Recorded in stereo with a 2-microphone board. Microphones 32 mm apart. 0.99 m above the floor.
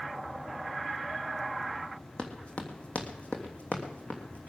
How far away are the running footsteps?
About 2.5 m.